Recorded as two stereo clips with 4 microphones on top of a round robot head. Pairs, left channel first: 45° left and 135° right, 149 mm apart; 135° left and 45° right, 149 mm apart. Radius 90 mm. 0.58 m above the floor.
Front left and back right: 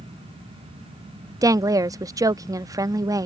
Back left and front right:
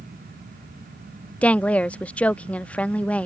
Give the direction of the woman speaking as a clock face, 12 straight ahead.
5 o'clock.